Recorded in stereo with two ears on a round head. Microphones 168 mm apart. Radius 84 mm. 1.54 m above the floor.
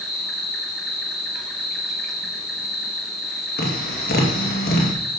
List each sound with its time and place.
0.0 s an insect: centre (ahead or behind), 2 m
3.6 s tapping: 55° left (ahead or behind), 2.5 m